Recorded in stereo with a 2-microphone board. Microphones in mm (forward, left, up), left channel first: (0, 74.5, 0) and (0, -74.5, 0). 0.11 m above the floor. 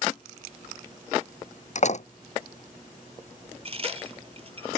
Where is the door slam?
50° left (ahead or behind).